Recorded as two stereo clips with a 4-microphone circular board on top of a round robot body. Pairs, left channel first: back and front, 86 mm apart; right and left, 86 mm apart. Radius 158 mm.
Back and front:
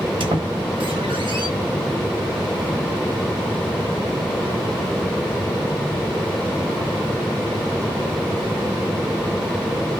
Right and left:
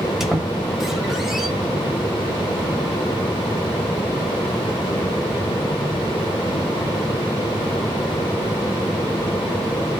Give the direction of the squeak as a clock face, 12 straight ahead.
12 o'clock.